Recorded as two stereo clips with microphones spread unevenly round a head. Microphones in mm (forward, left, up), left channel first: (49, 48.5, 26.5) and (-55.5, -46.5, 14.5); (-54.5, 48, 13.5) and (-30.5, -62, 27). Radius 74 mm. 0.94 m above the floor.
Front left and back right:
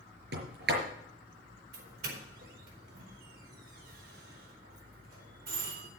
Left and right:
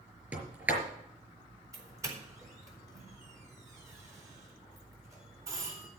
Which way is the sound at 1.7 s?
140° right.